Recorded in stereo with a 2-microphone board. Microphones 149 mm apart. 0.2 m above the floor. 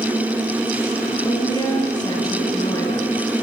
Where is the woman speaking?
25° left (ahead or behind), 3.5 m.